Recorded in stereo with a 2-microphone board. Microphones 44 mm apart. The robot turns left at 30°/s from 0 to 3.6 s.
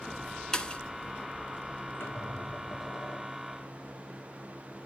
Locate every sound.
0.5 s a pop: 15° left (ahead or behind), 0.9 m; by 0.8 s 25° left (ahead or behind), 0.9 m
2.0 s a squeak: 100° left, 6 m; by 3.6 s 50° left, 6 m